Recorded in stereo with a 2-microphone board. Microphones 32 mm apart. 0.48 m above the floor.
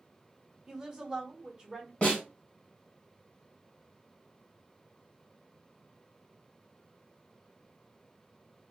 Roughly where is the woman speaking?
Right.